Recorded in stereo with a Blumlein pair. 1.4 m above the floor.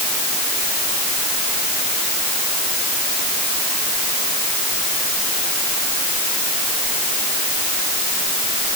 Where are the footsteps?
No footsteps in this recording.